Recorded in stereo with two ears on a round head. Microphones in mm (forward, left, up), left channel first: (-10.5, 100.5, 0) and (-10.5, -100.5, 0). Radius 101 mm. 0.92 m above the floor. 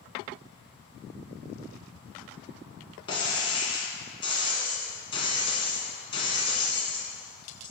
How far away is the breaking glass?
About 1.6 m.